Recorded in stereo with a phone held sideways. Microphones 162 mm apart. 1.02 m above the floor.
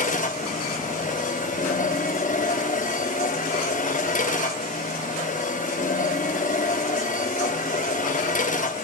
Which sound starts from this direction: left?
A machine running, at 0.0 s.